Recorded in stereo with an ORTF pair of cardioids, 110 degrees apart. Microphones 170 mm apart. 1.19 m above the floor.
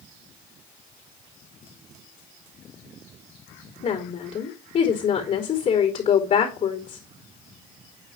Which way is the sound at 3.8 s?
45° left.